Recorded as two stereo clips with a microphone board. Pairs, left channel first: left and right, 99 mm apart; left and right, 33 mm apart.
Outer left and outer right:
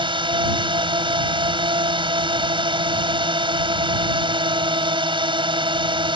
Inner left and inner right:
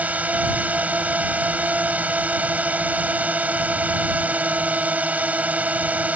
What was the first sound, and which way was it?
A drone, 60° right (ahead or behind).